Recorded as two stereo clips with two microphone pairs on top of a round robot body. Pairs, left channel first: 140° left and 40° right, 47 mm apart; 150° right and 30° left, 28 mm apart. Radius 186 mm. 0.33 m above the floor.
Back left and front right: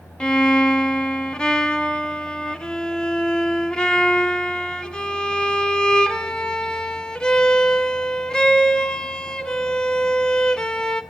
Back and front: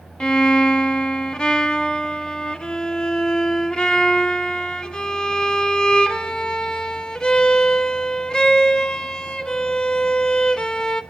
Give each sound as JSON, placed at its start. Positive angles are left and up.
{"t": 0.2, "sound": "a violin", "azimuth_deg": -170, "distance_m": 1.3}